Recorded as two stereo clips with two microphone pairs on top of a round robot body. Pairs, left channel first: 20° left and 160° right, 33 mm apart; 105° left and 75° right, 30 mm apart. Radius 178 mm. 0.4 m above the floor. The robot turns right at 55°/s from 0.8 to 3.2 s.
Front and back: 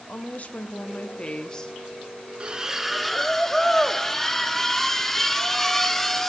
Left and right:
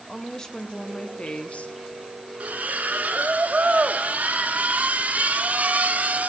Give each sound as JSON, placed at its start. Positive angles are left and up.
{"t": 0.1, "sound": "a woman speaking", "azimuth_deg": 45, "distance_m": 1.0}
{"t": 2.4, "sound": "a splash", "azimuth_deg": -100, "distance_m": 0.9}